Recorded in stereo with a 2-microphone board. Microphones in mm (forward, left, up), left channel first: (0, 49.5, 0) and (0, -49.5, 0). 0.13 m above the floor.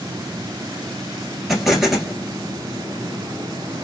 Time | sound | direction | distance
1.5 | an explosion | 5° right (ahead or behind) | 1.1 m